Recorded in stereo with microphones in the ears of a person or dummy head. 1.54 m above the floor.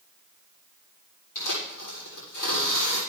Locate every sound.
1.4 s tearing paper: 65° left (ahead or behind), 6.5 m